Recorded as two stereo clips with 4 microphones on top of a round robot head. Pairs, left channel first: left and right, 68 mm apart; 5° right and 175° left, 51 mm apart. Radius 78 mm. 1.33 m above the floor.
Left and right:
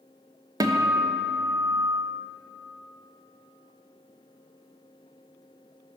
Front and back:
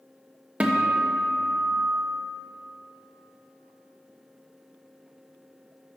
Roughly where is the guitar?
Behind right.